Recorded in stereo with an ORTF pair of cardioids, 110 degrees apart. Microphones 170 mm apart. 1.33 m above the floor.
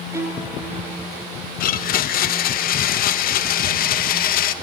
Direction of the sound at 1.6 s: 60° left.